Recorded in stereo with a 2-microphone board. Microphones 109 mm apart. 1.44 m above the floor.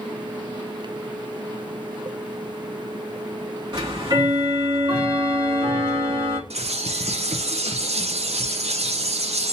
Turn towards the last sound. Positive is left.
turn(degrees=-75)  # may be behind; listen again after turning